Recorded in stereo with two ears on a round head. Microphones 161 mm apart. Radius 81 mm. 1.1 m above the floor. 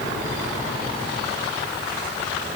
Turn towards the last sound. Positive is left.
No sound to turn to.